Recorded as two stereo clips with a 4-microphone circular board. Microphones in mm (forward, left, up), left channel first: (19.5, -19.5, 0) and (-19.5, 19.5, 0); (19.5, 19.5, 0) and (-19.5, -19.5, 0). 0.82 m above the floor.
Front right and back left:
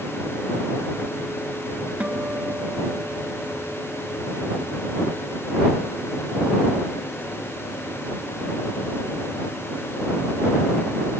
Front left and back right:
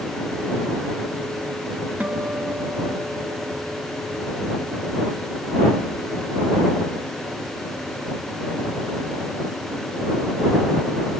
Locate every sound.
2.0 s a guitar: straight behind